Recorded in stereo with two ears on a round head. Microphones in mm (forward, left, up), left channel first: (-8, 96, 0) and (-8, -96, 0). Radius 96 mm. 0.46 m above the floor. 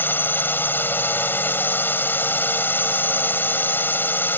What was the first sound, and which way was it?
A drone, 10° left (ahead or behind).